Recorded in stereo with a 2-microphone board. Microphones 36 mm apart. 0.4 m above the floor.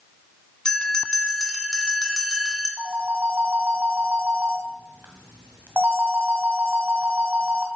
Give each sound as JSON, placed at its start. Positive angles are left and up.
{"t": 0.7, "sound": "a bell", "side_deg": 20, "distance_m": 2.5}
{"t": 2.8, "sound": "a phone ringing", "side_deg": -70, "distance_m": 2.0}